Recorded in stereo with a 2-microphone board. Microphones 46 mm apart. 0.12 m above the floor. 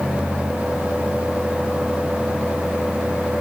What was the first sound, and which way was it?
Only background noise.